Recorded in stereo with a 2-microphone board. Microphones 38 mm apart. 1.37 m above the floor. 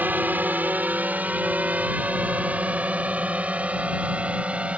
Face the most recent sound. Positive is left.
turn(degrees=-35)  # may be behind; listen again after turning